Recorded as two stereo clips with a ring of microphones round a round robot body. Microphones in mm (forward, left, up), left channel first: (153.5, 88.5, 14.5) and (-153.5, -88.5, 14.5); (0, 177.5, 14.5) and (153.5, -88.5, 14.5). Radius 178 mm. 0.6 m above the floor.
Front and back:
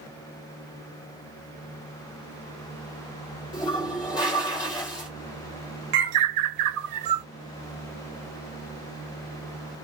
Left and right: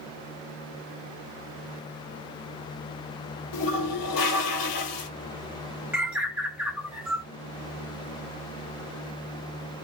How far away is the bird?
About 1.0 m.